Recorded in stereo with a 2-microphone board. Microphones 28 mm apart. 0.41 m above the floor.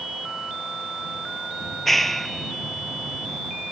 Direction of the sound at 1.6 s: 10° left (ahead or behind).